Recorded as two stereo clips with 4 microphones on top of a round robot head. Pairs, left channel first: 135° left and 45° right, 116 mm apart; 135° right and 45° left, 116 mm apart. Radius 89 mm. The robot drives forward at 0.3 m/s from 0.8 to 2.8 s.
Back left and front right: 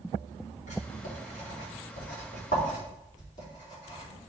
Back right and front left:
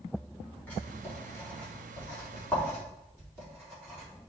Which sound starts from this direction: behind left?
Writing, at 0.7 s.